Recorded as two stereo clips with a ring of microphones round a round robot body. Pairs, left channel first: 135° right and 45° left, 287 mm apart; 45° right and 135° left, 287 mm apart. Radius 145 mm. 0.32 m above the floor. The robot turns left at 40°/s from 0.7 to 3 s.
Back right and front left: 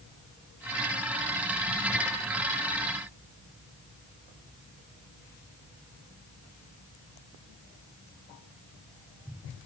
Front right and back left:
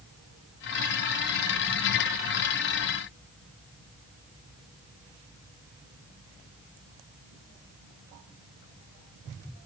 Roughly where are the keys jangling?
No keys jangling in this recording.